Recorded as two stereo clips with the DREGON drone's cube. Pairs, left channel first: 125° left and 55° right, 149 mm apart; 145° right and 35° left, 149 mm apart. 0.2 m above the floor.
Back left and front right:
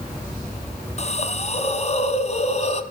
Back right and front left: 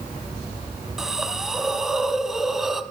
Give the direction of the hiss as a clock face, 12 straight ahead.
8 o'clock.